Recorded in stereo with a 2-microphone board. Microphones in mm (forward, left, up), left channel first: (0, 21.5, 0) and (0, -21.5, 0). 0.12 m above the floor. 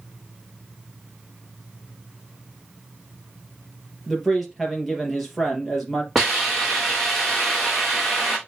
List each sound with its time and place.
4.1 s a man speaking: 5° right (ahead or behind), 2.5 m
6.2 s a hiss: centre (ahead or behind), 4.5 m